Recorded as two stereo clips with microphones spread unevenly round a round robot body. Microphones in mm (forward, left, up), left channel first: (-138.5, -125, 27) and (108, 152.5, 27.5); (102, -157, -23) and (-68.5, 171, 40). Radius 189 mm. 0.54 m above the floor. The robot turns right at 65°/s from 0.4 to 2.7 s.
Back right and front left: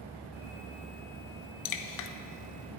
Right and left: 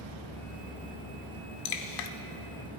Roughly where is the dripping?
Right.